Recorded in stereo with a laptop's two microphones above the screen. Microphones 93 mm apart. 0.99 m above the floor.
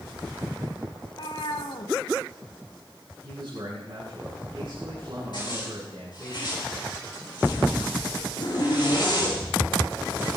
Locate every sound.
1.0 s a cat meowing: 65° left (ahead or behind), 1.6 m
3.2 s a man speaking: 55° right (ahead or behind), 9 m
5.3 s a zipper: 55° left (ahead or behind), 8 m